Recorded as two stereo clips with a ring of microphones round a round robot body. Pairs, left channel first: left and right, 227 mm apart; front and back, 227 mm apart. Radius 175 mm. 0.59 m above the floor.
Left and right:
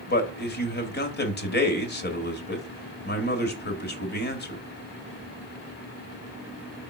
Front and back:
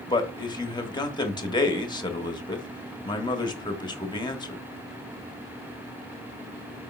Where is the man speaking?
65° left, 1.5 m.